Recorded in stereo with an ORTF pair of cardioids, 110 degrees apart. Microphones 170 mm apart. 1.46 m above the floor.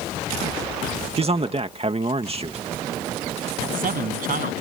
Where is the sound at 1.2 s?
35° right.